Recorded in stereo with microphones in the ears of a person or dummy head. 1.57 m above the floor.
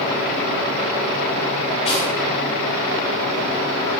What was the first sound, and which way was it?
Cutlery clinking, 30° left (ahead or behind).